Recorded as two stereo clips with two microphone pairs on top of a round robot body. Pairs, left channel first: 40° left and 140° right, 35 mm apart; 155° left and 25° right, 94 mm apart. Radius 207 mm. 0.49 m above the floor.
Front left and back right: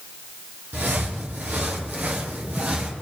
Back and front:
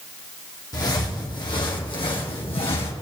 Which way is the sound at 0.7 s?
150° right.